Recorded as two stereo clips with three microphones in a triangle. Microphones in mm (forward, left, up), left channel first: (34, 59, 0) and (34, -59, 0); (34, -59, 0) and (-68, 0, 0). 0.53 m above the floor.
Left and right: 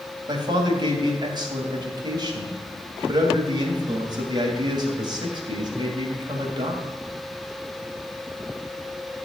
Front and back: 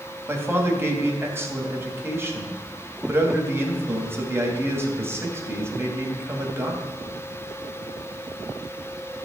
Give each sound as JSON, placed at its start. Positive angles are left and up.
{"t": 0.3, "sound": "a man speaking", "azimuth_deg": -140, "distance_m": 3.0}